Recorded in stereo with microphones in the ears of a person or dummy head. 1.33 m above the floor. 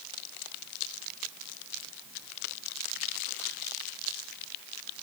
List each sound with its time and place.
Only background noise.